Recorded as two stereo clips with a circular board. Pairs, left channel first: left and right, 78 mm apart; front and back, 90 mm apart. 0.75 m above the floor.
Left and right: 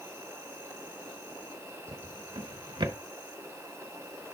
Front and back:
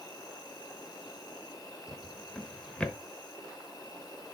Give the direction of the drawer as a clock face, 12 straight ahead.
3 o'clock.